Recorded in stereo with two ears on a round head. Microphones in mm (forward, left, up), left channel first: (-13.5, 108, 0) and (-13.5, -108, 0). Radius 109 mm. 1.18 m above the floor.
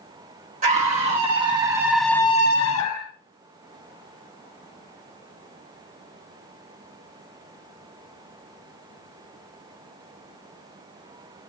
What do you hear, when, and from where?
0.6 s a scream: 30° right (ahead or behind), 3 m; by 3.1 s 70° left (ahead or behind), 1.3 m